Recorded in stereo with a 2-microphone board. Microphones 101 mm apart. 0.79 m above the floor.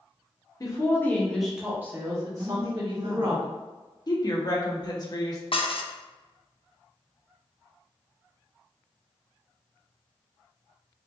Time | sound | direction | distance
0.6 | a woman speaking | 35° left (ahead or behind) | 1.2 m
2.4 | a woman speaking | 55° right (ahead or behind) | 1.7 m
4.1 | a woman speaking | 40° left (ahead or behind) | 1.0 m
5.5 | dishes clattering | 65° left (ahead or behind) | 0.5 m